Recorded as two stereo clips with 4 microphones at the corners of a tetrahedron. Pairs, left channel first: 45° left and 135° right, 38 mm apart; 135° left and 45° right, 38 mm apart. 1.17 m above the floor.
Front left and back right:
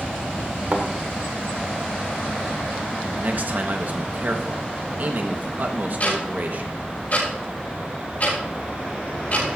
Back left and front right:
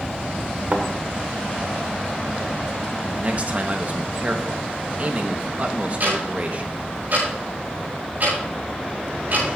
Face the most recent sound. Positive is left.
turn(degrees=0)